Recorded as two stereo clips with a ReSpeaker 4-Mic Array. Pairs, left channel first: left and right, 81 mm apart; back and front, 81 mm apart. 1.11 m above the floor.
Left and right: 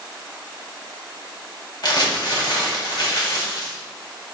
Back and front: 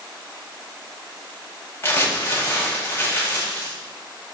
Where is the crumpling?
115° left, 1.6 m.